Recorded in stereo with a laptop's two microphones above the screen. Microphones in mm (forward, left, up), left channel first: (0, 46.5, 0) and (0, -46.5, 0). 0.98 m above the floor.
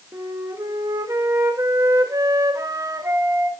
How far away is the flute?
About 1.2 m.